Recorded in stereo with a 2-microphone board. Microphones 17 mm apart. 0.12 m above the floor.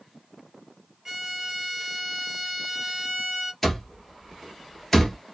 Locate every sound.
1.1 s a violin: 20° right (ahead or behind), 1.8 m
3.6 s an alarm clock: 10° left (ahead or behind), 1.2 m